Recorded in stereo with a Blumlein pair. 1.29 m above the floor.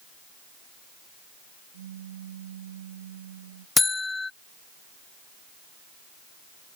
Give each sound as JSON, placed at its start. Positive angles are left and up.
{"t": 1.7, "sound": "a pop", "azimuth_deg": -60}
{"t": 3.8, "sound": "a buzzer", "azimuth_deg": 10}